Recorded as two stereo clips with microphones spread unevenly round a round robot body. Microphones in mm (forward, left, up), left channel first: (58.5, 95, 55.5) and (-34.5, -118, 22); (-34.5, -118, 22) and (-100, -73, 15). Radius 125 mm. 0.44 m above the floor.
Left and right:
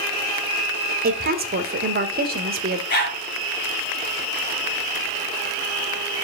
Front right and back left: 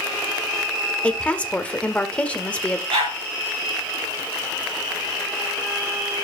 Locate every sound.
1.0 s a woman speaking: 105° right, 1.7 m
2.9 s a dog barking: 120° left, 5 m